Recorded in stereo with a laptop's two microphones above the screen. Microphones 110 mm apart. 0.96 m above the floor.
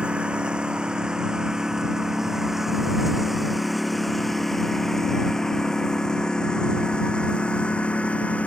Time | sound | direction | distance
0.0 | a lawn mower | 10° right (ahead or behind) | ?